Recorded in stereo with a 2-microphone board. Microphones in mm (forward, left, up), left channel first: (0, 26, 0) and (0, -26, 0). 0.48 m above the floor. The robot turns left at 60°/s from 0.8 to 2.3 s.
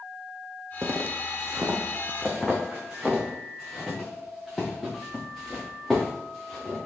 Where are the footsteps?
65° right (ahead or behind), 1.4 m; by 6.8 s 5° left (ahead or behind), 6 m.